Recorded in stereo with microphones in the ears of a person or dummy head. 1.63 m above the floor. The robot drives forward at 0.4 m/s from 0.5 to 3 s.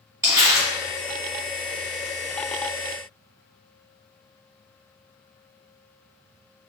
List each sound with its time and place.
0.2 s crumpling: 15° right (ahead or behind), 1.9 m